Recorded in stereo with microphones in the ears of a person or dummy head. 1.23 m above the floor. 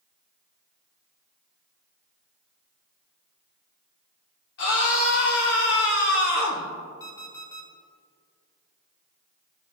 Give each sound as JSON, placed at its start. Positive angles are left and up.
{"t": 4.6, "sound": "a scream", "side_deg": 70, "distance_m": 3.0}
{"t": 7.0, "sound": "an alarm clock", "side_deg": 20, "distance_m": 1.3}